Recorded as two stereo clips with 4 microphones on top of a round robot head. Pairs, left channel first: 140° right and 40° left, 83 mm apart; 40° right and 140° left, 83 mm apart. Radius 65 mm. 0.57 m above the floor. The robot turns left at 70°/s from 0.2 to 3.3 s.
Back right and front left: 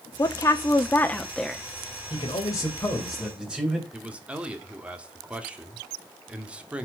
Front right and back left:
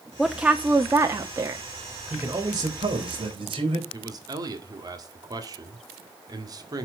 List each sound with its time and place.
0.2 s a woman speaking: 135° right, 1.0 m; by 1.6 s 125° left, 1.0 m
2.1 s a man speaking: 155° right, 3.5 m; by 3.8 s 120° left, 3.5 m
3.9 s a man speaking: 115° left, 2.0 m